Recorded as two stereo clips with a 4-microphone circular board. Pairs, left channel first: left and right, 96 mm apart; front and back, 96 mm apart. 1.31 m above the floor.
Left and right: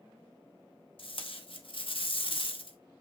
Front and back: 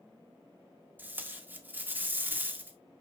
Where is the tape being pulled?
110° left, 1.6 m.